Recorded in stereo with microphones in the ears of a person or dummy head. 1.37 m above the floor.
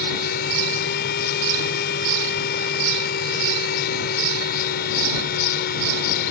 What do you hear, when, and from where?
0.0 s a fan: 55° left (ahead or behind)